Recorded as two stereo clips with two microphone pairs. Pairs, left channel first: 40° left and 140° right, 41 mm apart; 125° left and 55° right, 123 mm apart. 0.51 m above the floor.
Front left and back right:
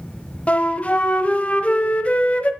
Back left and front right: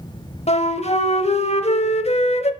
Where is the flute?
95° left, 0.7 m.